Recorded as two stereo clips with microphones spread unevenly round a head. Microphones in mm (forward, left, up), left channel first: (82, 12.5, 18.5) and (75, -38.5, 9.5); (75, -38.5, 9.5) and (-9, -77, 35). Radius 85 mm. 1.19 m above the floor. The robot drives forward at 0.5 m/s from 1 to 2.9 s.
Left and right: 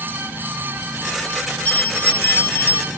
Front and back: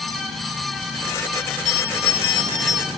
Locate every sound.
1.6 s a bell: 40° left; by 2.9 s 105° left